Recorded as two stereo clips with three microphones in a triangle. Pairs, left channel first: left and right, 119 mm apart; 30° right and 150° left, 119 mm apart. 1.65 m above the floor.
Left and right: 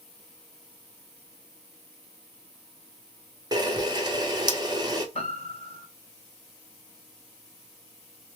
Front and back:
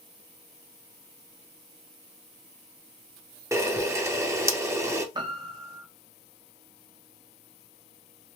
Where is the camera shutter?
145° right, 0.6 m.